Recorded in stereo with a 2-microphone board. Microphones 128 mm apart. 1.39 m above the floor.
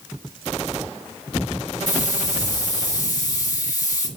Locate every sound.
1.9 s a hiss: 30° left (ahead or behind), 1.8 m